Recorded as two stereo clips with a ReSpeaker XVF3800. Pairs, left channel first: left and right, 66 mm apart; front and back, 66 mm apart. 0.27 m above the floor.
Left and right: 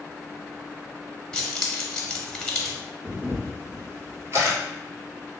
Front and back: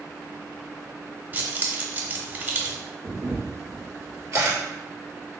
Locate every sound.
1.3 s keys jangling: 160° left, 0.8 m
3.0 s a camera shutter: 135° right, 1.8 m